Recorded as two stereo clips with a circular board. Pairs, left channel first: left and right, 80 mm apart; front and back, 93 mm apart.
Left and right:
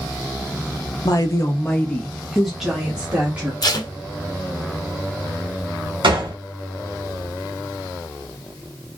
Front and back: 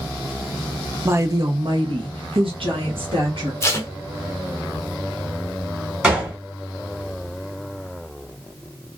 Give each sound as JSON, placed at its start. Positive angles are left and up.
{"t": 1.1, "sound": "a woman speaking", "azimuth_deg": 120, "distance_m": 0.7}
{"t": 3.6, "sound": "tape being pulled", "azimuth_deg": 60, "distance_m": 0.7}
{"t": 6.0, "sound": "a gunshot", "azimuth_deg": -100, "distance_m": 1.6}